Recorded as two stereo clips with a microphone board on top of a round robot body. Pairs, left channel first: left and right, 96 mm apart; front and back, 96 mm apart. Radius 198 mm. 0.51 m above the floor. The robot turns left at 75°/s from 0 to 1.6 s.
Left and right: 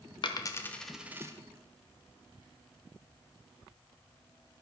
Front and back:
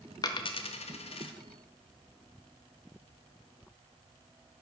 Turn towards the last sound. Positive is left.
turn(degrees=-50)